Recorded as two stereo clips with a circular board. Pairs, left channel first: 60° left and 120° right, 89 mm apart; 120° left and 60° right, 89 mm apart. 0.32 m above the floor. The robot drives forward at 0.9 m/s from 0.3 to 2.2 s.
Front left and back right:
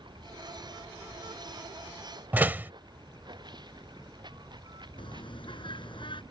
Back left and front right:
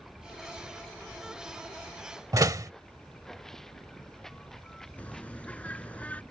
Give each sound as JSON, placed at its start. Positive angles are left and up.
{"t": 0.0, "sound": "running water", "azimuth_deg": -150}
{"t": 2.3, "sound": "a door slam", "azimuth_deg": -60}
{"t": 5.0, "sound": "a bird", "azimuth_deg": 45}